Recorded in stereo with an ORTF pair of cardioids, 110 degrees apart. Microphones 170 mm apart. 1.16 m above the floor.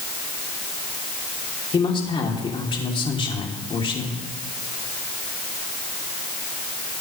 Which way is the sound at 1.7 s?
30° left.